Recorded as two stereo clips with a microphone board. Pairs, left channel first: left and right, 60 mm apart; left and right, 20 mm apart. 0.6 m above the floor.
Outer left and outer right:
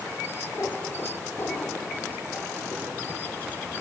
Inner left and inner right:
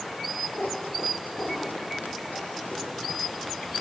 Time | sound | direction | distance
0.6 | a cat meowing | 50° left (ahead or behind) | 1.6 m